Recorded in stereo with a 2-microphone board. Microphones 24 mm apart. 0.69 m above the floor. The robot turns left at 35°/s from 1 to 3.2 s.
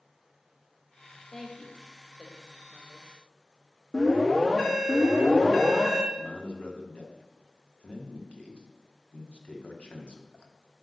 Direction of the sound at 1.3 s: 20° left (ahead or behind).